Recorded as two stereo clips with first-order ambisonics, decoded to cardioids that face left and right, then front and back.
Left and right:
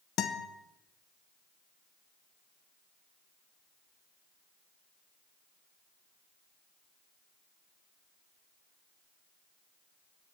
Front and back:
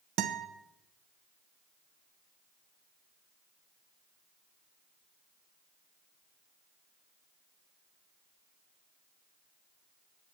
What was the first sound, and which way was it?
A guitar, 140° left.